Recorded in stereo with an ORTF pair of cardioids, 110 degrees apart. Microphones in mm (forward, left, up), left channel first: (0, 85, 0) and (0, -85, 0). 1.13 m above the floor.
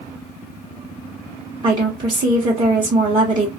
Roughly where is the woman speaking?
Ahead right.